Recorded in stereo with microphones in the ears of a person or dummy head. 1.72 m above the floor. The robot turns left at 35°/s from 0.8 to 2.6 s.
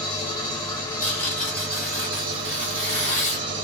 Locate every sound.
0.0 s an engine running: 20° left, 1.2 m; by 3.6 s 40° right, 1.2 m
1.0 s tearing paper: 25° left (ahead or behind), 1.7 m; by 3.5 s 20° left (ahead or behind), 1.7 m